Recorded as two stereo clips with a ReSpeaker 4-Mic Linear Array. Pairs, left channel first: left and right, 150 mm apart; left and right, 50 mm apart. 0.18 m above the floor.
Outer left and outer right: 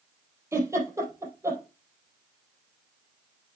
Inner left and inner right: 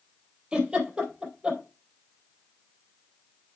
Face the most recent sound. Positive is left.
turn(degrees=-20)  # may be behind; listen again after turning